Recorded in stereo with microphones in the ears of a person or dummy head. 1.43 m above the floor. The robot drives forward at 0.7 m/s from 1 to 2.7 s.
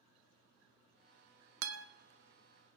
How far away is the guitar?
About 0.7 m.